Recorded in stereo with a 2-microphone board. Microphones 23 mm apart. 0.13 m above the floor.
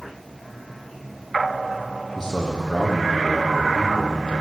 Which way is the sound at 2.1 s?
15° left (ahead or behind).